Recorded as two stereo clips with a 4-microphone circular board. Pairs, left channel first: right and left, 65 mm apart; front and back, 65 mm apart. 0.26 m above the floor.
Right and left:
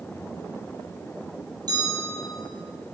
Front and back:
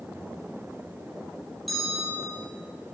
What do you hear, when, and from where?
1.7 s a bell: 90° left, 3.5 m